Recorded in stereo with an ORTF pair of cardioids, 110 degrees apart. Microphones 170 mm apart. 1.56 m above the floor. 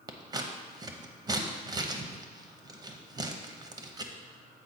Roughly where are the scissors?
Ahead right.